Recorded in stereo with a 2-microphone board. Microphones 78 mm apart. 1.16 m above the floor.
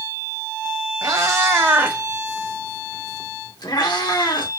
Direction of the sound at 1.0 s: 45° right (ahead or behind).